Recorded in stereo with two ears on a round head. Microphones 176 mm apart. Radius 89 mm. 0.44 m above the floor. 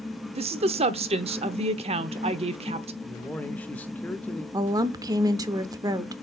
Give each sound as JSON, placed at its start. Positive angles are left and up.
{"t": 0.3, "sound": "a woman speaking", "side_deg": -30, "distance_m": 0.9}
{"t": 3.0, "sound": "a man speaking", "side_deg": 10, "distance_m": 0.8}
{"t": 4.5, "sound": "a woman speaking", "side_deg": -20, "distance_m": 0.9}